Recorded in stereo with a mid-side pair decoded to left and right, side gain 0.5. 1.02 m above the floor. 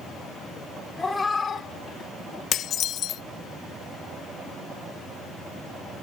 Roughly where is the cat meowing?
Ahead.